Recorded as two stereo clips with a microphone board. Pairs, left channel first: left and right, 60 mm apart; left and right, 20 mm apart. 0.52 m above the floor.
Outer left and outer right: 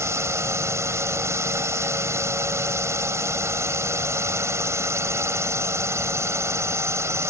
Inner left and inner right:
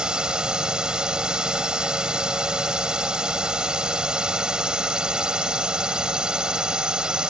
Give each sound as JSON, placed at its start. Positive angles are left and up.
{"t": 0.0, "sound": "a drone", "side_deg": -50}